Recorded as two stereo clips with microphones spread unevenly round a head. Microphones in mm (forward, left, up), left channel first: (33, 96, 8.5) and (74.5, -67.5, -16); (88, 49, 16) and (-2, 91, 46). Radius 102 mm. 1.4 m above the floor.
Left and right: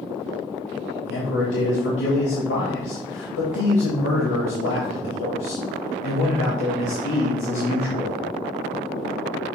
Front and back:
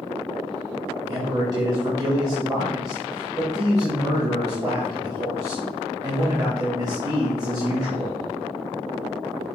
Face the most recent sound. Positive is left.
turn(degrees=100)